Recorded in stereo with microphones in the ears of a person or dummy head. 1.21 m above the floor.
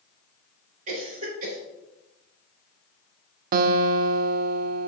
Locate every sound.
0.9 s a cough: 40° right (ahead or behind), 3.5 m
3.5 s a guitar: 50° right (ahead or behind), 0.5 m